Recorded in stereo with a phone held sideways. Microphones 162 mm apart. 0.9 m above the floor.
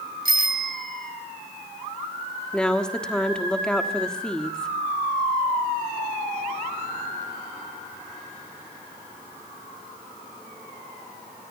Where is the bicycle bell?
65° right (ahead or behind), 2.5 m.